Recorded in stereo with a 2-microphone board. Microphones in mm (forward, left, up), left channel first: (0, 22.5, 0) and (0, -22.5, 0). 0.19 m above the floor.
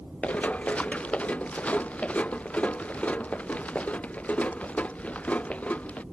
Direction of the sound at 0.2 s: 30° left (ahead or behind).